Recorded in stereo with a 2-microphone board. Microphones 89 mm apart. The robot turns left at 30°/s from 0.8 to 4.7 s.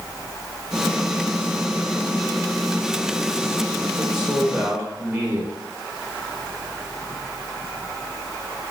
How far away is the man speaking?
About 0.8 m.